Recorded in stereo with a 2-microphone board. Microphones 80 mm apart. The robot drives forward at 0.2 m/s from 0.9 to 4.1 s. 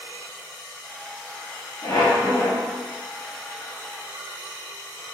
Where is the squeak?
60° left (ahead or behind), 1.0 m; by 2.7 s 55° left (ahead or behind), 1.0 m.